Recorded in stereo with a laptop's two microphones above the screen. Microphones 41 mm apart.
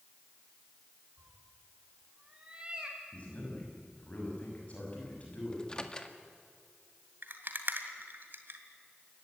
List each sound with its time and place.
1.2 s a cat meowing: 40° right (ahead or behind), 3 m; by 3.0 s 20° right (ahead or behind), 2.5 m
3.1 s a man speaking: 35° left (ahead or behind), 6 m
5.5 s a microwave: 20° left (ahead or behind), 1.8 m
7.2 s a rattle: 55° right (ahead or behind), 2.5 m